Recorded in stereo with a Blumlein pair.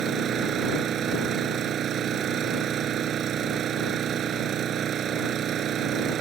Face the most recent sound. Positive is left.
turn(degrees=-30)